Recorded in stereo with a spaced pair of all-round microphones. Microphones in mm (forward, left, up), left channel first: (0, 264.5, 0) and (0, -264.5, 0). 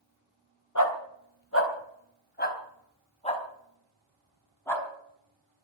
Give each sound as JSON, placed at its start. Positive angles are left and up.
{"t": 0.8, "sound": "a dog barking", "side_deg": 35, "distance_m": 2.5}